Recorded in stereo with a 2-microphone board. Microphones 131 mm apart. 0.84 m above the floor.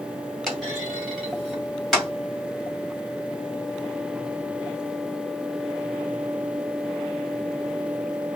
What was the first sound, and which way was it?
A clunk, centre (ahead or behind).